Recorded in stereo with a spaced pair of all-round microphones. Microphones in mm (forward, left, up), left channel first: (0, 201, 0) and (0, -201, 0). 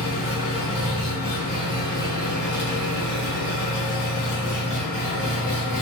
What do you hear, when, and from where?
0.0 s an engine running: 15° left (ahead or behind), 1.5 m